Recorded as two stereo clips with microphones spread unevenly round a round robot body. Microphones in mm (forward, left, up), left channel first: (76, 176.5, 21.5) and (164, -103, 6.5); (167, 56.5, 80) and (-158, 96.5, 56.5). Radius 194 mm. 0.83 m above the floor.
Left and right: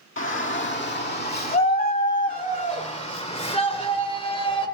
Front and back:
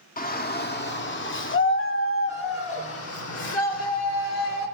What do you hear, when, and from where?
0.2 s a shout: 60° left, 2.0 m; by 4.7 s 35° left, 4 m